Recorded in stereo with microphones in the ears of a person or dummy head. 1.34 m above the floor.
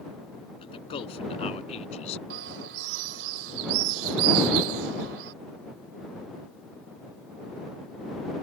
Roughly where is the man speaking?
Left.